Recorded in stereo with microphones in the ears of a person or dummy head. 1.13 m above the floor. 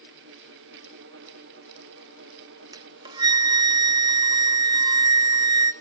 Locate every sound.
2.7 s a flute: 20° right (ahead or behind), 0.5 m